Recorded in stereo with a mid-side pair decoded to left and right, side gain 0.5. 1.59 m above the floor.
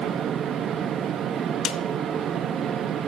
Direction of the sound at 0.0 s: 60° right.